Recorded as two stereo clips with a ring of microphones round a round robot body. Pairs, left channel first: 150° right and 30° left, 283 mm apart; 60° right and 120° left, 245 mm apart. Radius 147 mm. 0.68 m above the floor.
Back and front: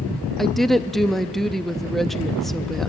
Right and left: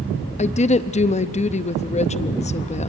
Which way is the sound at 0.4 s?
60° right.